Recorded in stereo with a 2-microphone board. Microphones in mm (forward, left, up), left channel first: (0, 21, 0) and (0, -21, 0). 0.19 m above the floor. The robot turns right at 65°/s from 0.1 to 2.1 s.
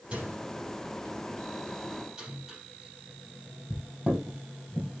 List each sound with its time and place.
0.1 s a microwave: 35° right (ahead or behind), 4.5 m; by 5.0 s 15° right (ahead or behind), 4.5 m